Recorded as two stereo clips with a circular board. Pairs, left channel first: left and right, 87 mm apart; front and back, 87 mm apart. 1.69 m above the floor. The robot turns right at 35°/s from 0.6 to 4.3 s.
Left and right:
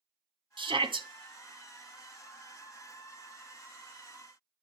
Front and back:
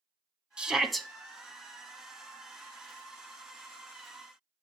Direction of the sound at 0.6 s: 100° right.